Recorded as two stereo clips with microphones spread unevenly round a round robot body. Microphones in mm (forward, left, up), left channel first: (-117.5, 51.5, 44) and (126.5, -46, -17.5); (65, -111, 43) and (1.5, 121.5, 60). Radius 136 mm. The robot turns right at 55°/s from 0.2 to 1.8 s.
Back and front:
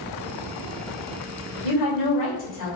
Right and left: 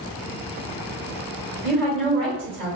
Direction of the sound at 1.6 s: 165° right.